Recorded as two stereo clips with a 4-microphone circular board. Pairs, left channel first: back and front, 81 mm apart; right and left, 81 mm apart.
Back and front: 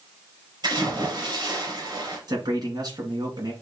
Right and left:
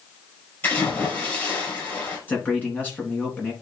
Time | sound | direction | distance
0.6 | a splash | 30° right | 4.5 m
2.3 | a man speaking | 25° right | 2.5 m